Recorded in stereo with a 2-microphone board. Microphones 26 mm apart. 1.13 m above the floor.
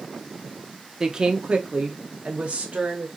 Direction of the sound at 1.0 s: 25° right (ahead or behind).